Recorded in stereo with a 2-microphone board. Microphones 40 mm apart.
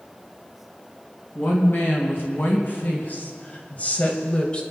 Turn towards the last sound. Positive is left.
turn(degrees=25)  # may be behind; listen again after turning